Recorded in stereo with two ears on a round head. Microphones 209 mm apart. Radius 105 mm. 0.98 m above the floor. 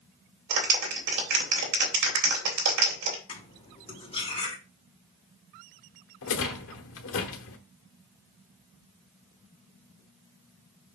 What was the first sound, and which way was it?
A clap, 85° right.